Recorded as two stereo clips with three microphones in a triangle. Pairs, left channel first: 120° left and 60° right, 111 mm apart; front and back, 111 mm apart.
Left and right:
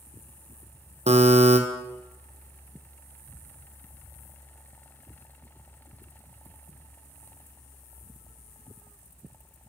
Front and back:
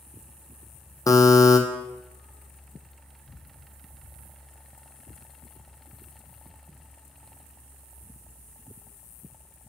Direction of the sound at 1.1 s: 55° right.